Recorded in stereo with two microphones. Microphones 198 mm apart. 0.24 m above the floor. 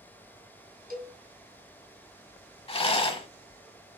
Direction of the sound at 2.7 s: 30° left (ahead or behind).